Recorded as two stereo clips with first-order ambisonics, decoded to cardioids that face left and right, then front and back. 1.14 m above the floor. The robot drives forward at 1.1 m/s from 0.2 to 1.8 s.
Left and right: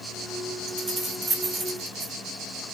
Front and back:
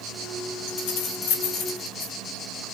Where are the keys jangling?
20° right, 3.5 m; by 2.1 s 35° right, 2.5 m.